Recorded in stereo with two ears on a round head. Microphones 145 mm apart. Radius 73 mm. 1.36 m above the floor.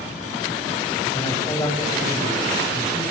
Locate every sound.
1.1 s a man speaking: 20° left (ahead or behind), 9.5 m